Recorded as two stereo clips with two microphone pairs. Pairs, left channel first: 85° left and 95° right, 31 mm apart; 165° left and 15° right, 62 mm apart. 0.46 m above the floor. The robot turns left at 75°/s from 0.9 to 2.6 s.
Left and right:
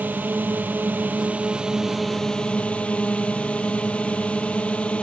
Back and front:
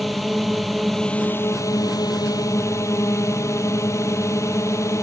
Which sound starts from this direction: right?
A drone, at 0.0 s.